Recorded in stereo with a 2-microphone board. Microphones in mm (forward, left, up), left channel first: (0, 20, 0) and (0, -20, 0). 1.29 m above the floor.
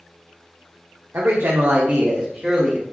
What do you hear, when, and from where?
1.1 s a man speaking: 70° right (ahead or behind), 0.7 m; by 2.8 s centre (ahead or behind), 1.2 m